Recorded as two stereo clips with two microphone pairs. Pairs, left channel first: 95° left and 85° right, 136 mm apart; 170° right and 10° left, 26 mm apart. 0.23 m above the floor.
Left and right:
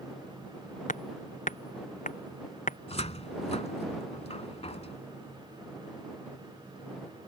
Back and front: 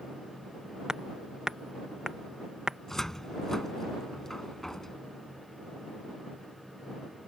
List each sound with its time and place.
0.9 s hammering: 75° left
2.9 s a cupboard door: 120° left